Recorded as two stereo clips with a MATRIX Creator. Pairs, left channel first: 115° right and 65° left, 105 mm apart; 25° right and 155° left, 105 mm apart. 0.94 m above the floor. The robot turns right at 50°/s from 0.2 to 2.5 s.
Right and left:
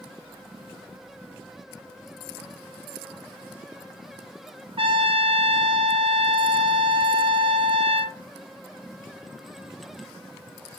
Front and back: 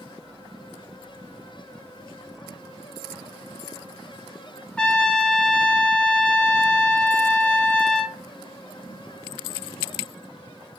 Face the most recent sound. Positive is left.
turn(degrees=55)